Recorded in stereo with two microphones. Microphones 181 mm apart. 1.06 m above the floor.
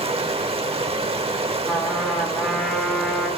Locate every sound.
0.0 s running water: 30° right (ahead or behind), 0.9 m
1.7 s a trumpet: centre (ahead or behind), 2.0 m